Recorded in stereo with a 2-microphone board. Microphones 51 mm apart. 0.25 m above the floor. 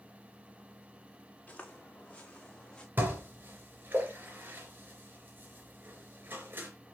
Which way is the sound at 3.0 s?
40° right (ahead or behind).